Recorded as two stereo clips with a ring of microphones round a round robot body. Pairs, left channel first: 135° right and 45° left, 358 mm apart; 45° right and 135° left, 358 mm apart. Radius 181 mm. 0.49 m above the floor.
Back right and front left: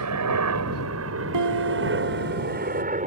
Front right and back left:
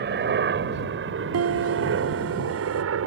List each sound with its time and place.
0.0 s a helicopter: 80° left; by 3.1 s 105° left
1.3 s a piano: 85° left